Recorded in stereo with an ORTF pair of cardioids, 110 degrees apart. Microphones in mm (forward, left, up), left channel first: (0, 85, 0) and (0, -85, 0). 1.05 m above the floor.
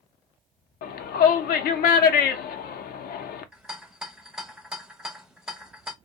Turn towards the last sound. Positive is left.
turn(degrees=-5)